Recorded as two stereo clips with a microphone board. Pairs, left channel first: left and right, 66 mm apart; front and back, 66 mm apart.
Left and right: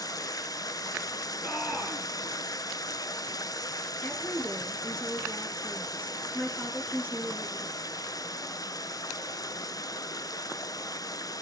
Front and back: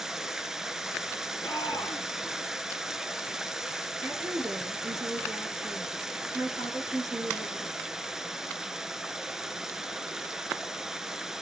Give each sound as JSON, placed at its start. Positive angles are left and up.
{"t": 0.0, "sound": "running water", "azimuth_deg": 100, "distance_m": 0.7}
{"t": 1.4, "sound": "a shout", "azimuth_deg": 25, "distance_m": 2.5}
{"t": 4.0, "sound": "a woman speaking", "azimuth_deg": 155, "distance_m": 4.5}